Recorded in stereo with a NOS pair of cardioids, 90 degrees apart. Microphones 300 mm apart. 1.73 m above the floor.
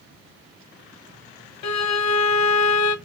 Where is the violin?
65° left, 0.8 m.